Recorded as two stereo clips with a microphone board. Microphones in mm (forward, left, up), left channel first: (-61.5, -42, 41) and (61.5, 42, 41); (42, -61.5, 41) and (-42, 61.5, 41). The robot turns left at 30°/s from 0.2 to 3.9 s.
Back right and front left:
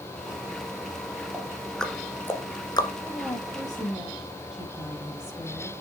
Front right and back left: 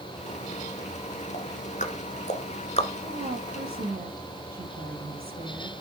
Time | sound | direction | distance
1.3 | ticking | 45° right | 1.4 m
3.0 | a woman speaking | 145° left | 6.5 m